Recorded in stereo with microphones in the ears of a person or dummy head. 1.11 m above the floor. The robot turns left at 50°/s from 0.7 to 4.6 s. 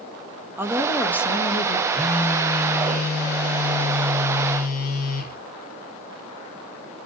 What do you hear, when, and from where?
0.6 s a woman speaking: 170° right, 1.2 m; by 1.8 s 135° left, 1.2 m
1.9 s a phone buzzing: 175° right, 1.5 m; by 5.4 s 50° left, 1.5 m